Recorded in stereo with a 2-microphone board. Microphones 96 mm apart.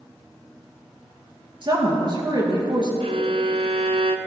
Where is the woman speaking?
50° right (ahead or behind), 3.5 m.